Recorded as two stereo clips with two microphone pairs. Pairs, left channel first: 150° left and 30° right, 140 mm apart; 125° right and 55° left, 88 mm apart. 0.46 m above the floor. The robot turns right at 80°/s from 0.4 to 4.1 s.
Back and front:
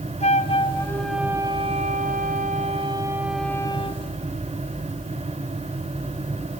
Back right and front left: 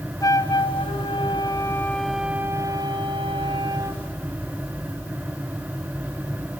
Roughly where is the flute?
Behind.